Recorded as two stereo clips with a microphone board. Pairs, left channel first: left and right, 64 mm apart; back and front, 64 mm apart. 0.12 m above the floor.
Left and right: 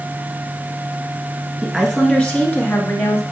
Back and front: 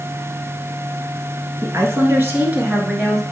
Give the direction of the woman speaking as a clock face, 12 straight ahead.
12 o'clock.